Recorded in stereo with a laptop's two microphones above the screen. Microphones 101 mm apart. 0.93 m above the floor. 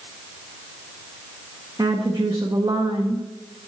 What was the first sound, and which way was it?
A woman speaking, 35° right (ahead or behind).